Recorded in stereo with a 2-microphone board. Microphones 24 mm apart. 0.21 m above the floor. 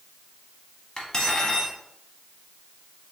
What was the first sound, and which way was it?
Cutlery clinking, 30° left (ahead or behind).